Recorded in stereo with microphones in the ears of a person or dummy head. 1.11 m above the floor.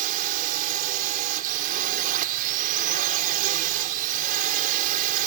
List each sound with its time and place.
0.0 s a drone: 45° right (ahead or behind)